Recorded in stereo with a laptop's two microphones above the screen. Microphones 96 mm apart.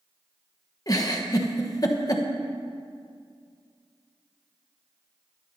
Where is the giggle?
40° left (ahead or behind), 1.0 m.